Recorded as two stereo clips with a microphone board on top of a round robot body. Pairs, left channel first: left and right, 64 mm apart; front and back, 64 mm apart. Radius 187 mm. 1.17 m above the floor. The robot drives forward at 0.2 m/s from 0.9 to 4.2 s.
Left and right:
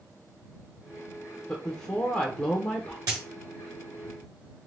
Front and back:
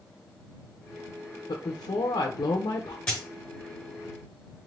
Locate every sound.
1.5 s a woman speaking: 15° left, 0.7 m; by 3.0 s 25° left, 0.5 m
3.1 s a dropped coin: 75° right, 1.1 m